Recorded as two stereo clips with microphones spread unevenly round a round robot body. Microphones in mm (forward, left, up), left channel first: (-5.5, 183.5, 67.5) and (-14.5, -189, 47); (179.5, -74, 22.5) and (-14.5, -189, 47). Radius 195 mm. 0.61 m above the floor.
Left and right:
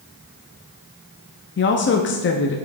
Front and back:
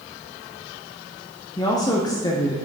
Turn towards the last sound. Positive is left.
turn(degrees=65)